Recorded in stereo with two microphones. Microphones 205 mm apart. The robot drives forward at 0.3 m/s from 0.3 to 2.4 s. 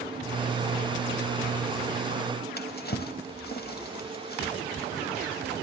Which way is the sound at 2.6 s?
50° left (ahead or behind).